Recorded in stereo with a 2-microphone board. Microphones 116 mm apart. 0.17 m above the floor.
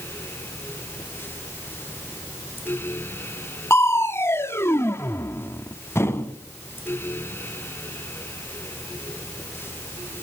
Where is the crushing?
20° left (ahead or behind), 0.8 m.